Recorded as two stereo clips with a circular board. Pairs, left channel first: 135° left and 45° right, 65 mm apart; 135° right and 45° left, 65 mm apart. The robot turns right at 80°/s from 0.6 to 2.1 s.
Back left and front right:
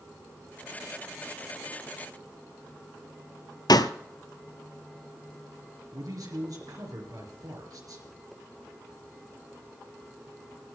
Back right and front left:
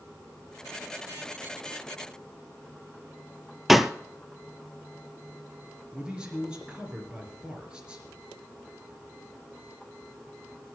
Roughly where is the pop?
Behind left.